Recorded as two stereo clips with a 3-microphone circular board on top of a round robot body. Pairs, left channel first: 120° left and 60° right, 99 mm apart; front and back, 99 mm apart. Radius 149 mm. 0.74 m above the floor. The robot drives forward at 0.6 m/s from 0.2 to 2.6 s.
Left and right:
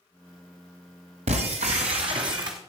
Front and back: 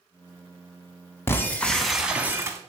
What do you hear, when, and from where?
1.3 s breaking glass: 65° right, 1.0 m; by 2.6 s 120° right, 1.0 m